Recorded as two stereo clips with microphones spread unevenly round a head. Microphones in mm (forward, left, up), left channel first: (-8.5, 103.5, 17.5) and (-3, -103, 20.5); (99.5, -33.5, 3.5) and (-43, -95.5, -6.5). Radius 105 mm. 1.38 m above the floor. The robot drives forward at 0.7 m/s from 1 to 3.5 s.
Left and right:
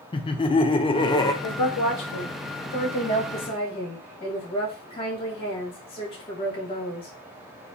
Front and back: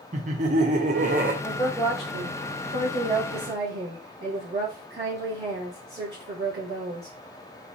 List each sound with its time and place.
0.1 s laughter: 155° left, 0.6 m; by 1.3 s 165° left, 0.8 m
1.4 s a woman speaking: 95° left, 0.7 m; by 7.1 s 155° left, 1.7 m